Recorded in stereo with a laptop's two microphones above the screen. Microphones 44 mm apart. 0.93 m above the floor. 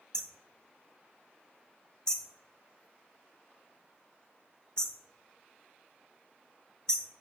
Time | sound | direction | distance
0.1 | hammering | 20° left (ahead or behind) | 1.7 m